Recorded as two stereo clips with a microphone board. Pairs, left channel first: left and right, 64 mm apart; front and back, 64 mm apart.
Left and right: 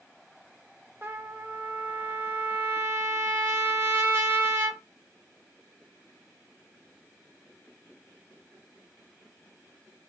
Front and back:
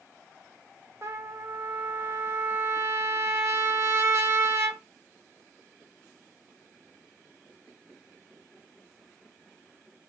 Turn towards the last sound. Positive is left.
turn(degrees=-140)